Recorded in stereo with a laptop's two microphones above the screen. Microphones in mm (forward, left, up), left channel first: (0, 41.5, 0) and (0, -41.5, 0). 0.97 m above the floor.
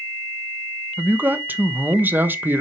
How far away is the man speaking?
About 1.0 m.